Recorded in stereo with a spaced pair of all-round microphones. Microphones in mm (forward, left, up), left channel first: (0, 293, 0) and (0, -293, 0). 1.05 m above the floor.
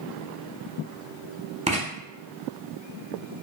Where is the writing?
10° right (ahead or behind), 0.8 m.